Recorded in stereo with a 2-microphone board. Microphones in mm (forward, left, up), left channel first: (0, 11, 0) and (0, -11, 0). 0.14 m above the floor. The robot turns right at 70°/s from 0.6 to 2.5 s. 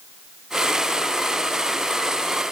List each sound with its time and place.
Only background noise.